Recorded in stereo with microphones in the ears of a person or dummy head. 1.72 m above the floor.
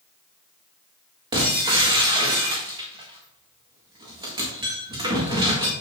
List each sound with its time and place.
1.3 s breaking glass: 25° right (ahead or behind), 1.7 m